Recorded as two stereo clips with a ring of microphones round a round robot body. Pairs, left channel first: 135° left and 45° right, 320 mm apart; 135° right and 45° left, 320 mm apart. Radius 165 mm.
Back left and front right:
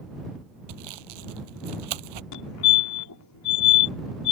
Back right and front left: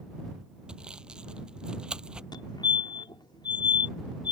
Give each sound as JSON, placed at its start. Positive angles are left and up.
{"t": 0.7, "sound": "sawing", "azimuth_deg": -45}
{"t": 2.3, "sound": "a fire alarm", "azimuth_deg": 150}